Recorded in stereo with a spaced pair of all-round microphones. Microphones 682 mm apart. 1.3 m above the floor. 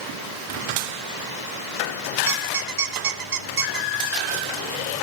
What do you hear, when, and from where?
2.3 s a squeak: 75° right (ahead or behind), 0.8 m